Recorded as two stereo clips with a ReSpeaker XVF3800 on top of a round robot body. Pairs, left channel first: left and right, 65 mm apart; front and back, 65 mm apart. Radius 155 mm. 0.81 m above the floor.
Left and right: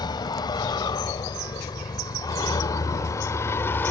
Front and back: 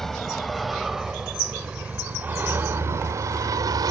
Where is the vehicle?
85° left; by 3.9 s 150° left.